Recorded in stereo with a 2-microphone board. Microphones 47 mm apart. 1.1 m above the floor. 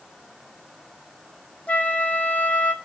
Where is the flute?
35° left (ahead or behind), 1.1 m.